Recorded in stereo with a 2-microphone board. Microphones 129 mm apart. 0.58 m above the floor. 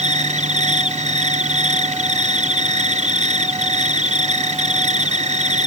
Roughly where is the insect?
Right.